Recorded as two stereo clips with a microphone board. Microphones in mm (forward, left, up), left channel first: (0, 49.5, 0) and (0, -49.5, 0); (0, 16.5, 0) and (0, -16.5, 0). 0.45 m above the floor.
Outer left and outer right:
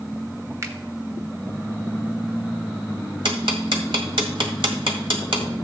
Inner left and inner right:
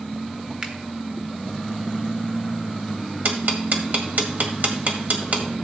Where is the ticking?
60° right (ahead or behind), 1.7 m.